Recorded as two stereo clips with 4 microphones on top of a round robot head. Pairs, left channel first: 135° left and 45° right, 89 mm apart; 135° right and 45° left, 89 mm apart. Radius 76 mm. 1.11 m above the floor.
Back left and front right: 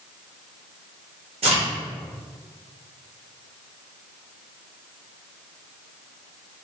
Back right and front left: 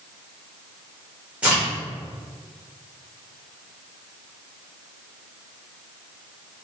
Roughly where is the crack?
Ahead right.